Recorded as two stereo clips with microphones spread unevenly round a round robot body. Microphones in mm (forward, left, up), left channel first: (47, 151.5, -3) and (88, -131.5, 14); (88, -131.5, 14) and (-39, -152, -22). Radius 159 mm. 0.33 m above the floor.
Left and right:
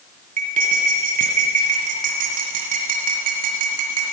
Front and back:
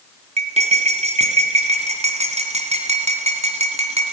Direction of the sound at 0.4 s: 150° right.